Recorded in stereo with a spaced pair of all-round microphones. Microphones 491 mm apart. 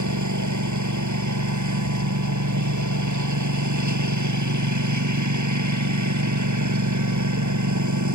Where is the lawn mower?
35° right (ahead or behind).